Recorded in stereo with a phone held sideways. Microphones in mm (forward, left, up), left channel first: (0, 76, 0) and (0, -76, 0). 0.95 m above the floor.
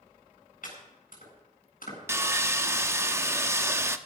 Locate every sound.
0.6 s chopping: 65° left (ahead or behind), 8.5 m
2.1 s sawing: 20° right (ahead or behind), 0.8 m